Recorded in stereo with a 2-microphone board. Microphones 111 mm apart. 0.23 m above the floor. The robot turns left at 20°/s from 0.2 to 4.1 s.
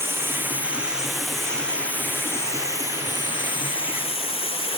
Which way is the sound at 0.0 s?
160° right.